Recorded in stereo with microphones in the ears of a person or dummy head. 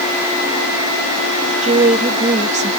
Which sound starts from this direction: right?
A woman speaking, at 1.6 s.